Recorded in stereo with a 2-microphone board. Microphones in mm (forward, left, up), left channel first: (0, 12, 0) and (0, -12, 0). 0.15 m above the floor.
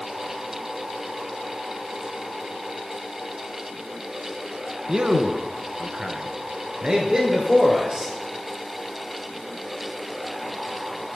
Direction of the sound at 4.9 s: 30° right (ahead or behind).